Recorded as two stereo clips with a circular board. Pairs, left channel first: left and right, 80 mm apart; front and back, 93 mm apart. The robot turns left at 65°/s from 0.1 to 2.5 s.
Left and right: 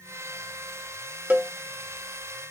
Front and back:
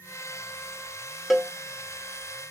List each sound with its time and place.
1.3 s a cowbell: 90° right, 0.5 m; by 1.5 s 105° right, 0.5 m